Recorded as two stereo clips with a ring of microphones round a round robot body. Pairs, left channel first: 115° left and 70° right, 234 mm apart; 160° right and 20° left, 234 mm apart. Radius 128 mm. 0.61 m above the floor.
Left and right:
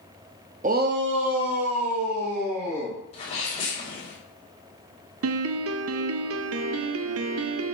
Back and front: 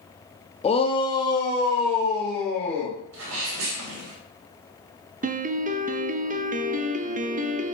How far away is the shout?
About 1.0 m.